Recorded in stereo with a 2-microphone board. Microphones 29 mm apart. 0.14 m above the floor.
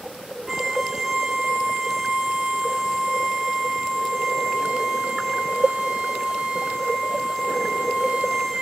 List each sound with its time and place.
0.5 s a violin: 10° right (ahead or behind), 2 m